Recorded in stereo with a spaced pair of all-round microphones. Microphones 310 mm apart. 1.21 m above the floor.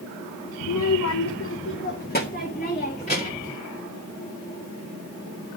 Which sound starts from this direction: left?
A child speaking, at 0.6 s.